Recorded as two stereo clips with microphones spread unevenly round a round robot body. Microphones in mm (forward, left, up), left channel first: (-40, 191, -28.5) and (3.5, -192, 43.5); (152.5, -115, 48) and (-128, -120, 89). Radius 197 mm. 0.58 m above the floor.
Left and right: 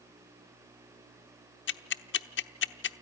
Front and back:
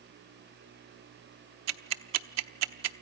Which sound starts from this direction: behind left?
Ticking, at 1.7 s.